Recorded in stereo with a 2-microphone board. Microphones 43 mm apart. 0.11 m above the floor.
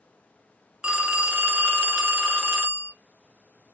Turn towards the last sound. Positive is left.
turn(degrees=-20)  # may be behind; listen again after turning